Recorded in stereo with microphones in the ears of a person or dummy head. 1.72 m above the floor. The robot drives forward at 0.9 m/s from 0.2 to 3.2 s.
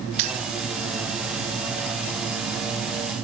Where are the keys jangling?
30° right (ahead or behind), 0.7 m.